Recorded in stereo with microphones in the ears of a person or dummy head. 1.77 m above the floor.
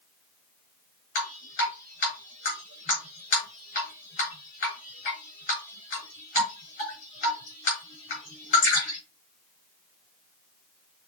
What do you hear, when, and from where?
1.1 s dripping: 50° left (ahead or behind), 4.5 m